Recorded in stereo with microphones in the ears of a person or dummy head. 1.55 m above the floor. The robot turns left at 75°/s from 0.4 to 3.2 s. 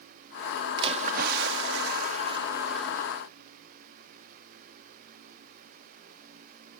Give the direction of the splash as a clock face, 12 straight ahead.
1 o'clock.